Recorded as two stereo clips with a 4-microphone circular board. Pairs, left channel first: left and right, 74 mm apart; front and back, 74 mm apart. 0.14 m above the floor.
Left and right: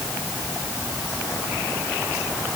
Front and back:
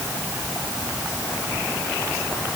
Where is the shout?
No shout in this recording.